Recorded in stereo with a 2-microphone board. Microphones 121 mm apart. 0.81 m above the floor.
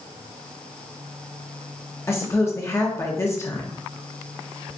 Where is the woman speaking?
20° left (ahead or behind), 0.8 m.